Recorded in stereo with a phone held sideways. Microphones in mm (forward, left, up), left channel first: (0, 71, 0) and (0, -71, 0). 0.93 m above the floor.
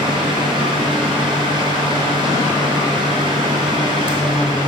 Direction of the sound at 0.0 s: 35° right (ahead or behind).